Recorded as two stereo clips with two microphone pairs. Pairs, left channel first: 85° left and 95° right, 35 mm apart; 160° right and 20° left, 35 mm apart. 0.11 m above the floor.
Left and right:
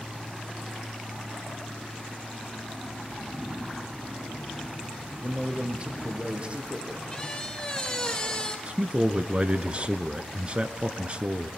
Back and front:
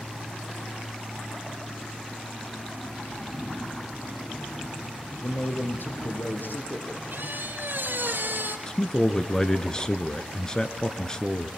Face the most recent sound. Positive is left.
turn(degrees=-115)